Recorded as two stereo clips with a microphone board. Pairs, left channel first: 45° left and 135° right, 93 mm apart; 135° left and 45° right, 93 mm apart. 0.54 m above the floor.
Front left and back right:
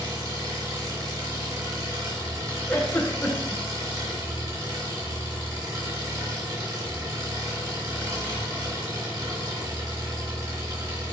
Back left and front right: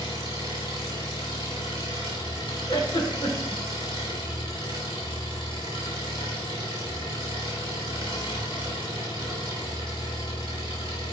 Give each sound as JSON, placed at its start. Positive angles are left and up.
{"t": 0.0, "sound": "an engine running", "azimuth_deg": 170, "distance_m": 3.5}
{"t": 2.7, "sound": "a giggle", "azimuth_deg": 110, "distance_m": 1.9}